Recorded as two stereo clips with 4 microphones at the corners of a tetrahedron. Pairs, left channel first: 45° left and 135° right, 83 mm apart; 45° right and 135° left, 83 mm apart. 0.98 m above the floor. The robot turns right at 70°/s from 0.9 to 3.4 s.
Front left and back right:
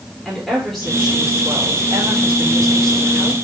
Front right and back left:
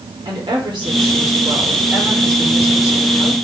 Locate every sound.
0.2 s a woman speaking: 135° left, 3.5 m; by 3.4 s 55° right, 3.5 m